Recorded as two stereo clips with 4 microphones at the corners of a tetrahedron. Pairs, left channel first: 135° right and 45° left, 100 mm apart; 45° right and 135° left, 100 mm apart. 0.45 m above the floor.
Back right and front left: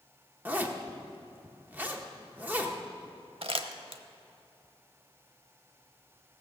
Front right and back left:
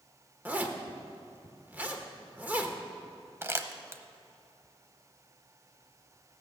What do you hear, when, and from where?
0.5 s a zipper: 90° left, 1.1 m
3.4 s crumpling: 70° left, 0.8 m